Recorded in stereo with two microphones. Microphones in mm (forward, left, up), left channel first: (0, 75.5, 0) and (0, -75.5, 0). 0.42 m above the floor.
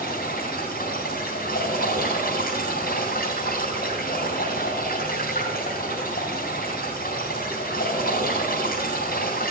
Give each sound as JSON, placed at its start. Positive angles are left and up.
{"t": 0.0, "sound": "running water", "side_deg": 75, "distance_m": 4.0}